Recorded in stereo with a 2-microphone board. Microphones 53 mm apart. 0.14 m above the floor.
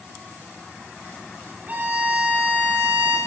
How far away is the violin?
About 8.5 m.